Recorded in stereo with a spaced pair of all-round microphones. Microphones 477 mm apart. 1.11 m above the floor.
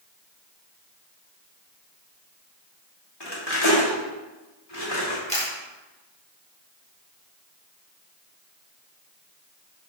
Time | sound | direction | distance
3.2 | cutlery clinking | 55° left (ahead or behind) | 1.8 m
5.3 | a camera shutter | 15° left (ahead or behind) | 2 m